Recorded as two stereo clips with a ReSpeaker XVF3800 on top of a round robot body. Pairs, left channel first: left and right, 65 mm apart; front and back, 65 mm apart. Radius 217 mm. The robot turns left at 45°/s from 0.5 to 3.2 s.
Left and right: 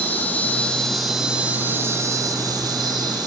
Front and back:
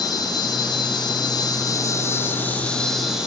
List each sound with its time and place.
0.0 s an insect: 25° left, 7.5 m; by 3.3 s 100° right, 7.5 m